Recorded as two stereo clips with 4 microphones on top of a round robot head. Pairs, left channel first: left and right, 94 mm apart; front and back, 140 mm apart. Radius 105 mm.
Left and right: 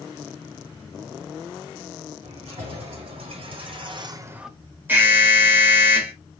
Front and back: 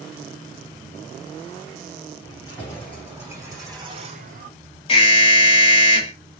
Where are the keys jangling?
95° right, 3.5 m; by 4.5 s 175° right, 0.8 m.